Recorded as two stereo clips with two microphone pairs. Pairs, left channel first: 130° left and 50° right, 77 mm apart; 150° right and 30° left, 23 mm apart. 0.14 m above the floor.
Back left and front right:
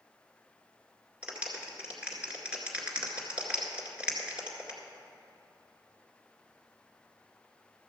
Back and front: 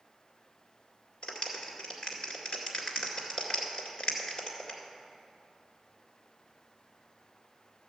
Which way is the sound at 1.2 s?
115° right.